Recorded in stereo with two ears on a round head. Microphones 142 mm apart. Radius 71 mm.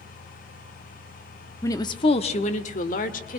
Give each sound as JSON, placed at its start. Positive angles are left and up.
{"t": 1.6, "sound": "a woman speaking", "side_deg": 20, "distance_m": 1.0}